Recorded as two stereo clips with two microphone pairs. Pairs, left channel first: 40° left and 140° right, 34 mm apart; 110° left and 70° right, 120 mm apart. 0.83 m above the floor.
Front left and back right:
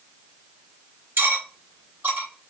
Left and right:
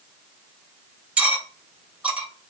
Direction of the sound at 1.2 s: 150° right.